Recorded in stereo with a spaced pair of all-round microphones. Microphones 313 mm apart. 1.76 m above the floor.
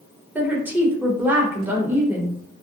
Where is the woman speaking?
5° right (ahead or behind), 0.8 m.